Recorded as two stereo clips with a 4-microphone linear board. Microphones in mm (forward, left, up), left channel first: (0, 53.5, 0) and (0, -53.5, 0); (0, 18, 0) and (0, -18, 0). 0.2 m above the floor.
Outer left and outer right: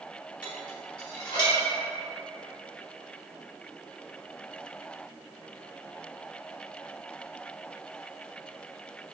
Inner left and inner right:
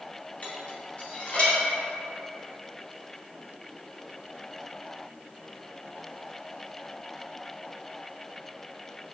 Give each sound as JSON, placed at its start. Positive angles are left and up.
{"t": 0.4, "sound": "dishes clattering", "side_deg": 40, "distance_m": 0.9}